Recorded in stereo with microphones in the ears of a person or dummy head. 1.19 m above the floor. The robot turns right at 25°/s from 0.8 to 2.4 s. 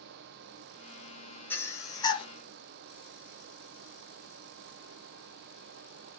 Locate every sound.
1.5 s breathing: 10° left (ahead or behind), 0.6 m; by 2.3 s 25° left (ahead or behind), 0.6 m